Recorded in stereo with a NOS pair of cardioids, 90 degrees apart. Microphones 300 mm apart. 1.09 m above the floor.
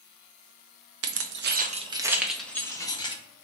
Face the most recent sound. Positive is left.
turn(degrees=15)